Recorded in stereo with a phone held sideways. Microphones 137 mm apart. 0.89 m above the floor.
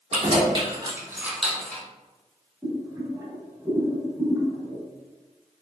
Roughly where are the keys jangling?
Right.